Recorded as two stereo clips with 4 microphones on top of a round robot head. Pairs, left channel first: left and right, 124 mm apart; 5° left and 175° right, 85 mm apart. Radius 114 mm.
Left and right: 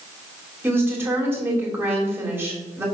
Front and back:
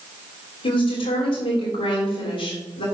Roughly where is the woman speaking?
Ahead.